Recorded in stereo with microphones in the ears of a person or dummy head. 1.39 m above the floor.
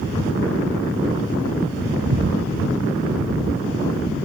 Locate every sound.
2.1 s breathing: 65° right (ahead or behind)